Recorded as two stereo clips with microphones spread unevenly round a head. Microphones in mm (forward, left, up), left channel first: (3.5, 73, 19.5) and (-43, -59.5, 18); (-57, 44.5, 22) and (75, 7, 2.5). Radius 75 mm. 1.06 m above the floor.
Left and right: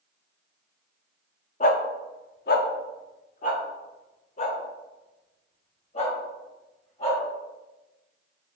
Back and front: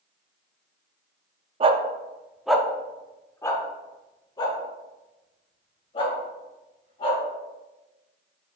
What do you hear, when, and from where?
1.6 s a dog barking: 35° left, 0.7 m; by 7.2 s 115° left, 3.5 m